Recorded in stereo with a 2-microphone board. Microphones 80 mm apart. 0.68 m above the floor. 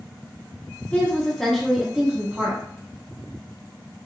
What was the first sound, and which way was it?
A woman speaking, 20° left (ahead or behind).